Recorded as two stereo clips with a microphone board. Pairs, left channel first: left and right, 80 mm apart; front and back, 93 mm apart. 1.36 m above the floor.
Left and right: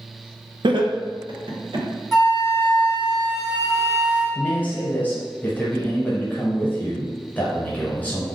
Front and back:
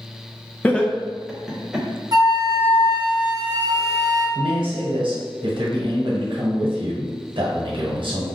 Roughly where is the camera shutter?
No camera shutter in this recording.